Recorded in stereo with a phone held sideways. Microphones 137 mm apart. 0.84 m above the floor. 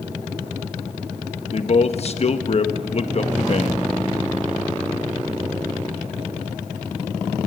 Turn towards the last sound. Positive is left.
turn(degrees=50)  # may be behind; listen again after turning